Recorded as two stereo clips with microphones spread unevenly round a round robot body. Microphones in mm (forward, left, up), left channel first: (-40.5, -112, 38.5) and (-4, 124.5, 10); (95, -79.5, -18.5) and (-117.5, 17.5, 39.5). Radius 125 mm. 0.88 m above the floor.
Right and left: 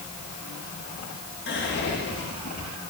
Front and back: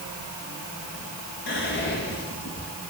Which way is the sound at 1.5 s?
50° right.